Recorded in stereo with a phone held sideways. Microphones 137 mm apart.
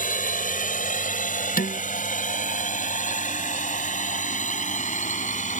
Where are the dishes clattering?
80° left.